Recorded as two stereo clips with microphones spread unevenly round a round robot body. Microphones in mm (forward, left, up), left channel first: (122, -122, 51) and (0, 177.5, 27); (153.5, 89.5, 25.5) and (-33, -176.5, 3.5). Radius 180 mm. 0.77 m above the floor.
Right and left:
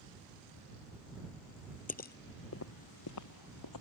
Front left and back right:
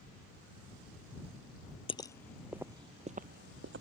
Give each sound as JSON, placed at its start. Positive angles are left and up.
{"t": 1.9, "sound": "footsteps", "azimuth_deg": -10}